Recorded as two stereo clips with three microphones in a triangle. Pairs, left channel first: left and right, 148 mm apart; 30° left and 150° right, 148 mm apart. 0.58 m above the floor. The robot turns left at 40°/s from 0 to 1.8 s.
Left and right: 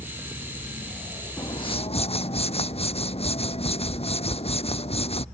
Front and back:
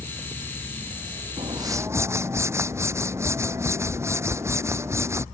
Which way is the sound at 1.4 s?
155° left.